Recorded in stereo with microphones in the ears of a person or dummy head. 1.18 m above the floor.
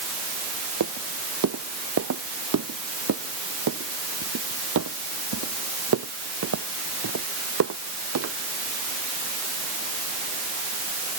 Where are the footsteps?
70° right (ahead or behind); by 8.3 s 80° right.